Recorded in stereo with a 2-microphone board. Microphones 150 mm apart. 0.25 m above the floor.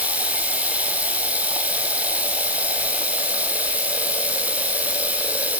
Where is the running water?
10° right (ahead or behind), 4 m.